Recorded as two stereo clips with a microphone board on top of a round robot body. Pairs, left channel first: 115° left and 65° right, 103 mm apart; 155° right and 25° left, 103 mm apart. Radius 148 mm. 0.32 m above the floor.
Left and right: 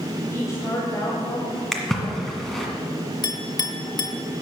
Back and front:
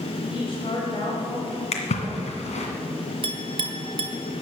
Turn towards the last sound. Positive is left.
turn(degrees=60)